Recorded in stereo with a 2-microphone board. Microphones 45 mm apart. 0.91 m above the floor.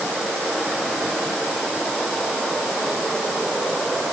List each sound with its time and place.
Only background noise.